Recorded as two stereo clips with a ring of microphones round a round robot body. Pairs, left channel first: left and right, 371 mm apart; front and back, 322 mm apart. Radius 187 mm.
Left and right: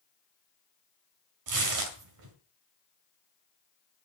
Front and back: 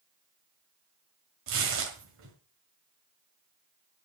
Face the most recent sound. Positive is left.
turn(degrees=-125)